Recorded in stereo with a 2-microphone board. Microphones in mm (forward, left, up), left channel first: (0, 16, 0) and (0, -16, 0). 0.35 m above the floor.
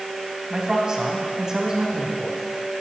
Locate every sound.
0.5 s a man speaking: 25° right (ahead or behind), 2.5 m